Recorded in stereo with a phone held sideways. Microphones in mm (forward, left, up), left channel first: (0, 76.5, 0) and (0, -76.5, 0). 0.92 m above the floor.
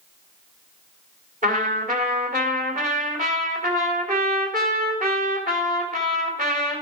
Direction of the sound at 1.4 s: 65° right (ahead or behind).